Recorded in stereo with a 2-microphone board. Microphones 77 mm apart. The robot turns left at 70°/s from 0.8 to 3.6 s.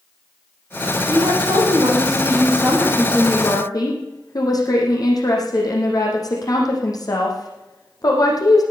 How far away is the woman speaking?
About 6 m.